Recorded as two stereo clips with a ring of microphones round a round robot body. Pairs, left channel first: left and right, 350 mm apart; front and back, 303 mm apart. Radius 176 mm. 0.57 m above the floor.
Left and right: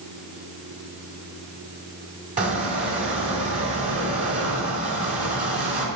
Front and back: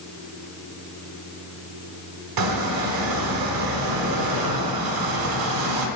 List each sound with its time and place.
2.4 s a squeak: 160° right, 1.4 m